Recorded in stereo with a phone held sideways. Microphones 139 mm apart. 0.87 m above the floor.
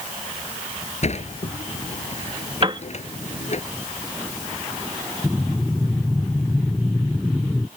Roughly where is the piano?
Right.